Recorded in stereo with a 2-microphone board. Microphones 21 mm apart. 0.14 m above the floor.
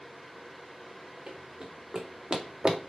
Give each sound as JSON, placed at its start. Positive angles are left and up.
{"t": 1.3, "sound": "running footsteps", "side_deg": -55, "distance_m": 3.0}